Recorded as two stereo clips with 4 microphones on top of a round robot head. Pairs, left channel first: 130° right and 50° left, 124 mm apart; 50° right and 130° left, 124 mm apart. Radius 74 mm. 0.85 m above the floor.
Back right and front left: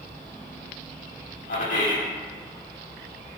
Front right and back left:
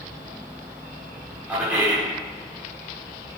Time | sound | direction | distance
1.5 | a man speaking | 145° right | 2.5 m